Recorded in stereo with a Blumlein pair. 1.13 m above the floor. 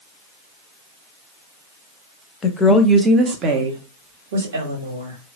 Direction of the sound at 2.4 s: 20° left.